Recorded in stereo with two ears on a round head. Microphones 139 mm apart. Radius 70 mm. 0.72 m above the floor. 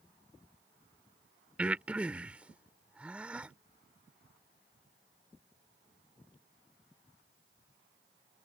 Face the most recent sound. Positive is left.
turn(degrees=-10)  # may be behind; listen again after turning